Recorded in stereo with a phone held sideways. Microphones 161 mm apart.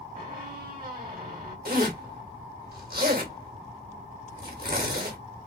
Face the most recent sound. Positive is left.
turn(degrees=-65)  # may be behind; listen again after turning